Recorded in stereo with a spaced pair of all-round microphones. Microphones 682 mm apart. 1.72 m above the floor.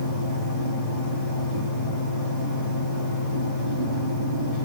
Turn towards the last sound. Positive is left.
turn(degrees=60)  # may be behind; listen again after turning